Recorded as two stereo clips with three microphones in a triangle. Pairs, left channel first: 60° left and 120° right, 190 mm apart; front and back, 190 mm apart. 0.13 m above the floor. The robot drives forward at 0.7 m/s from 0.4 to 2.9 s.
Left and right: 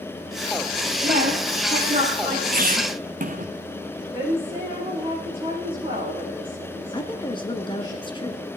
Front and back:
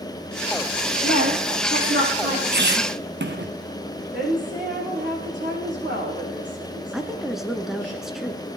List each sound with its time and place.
1.0 s a woman speaking: 170° right, 4.5 m
2.5 s a squeak: 155° right, 0.8 m; by 3.5 s 165° right, 1.0 m
4.1 s a woman speaking: straight behind, 6.5 m
6.9 s a woman speaking: 95° left, 1.2 m